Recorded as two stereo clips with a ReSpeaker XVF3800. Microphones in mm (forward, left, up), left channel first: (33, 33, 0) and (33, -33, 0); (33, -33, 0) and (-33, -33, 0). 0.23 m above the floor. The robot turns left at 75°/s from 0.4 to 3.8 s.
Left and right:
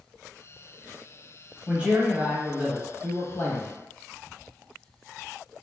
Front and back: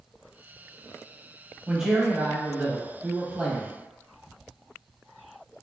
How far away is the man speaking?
About 1.0 m.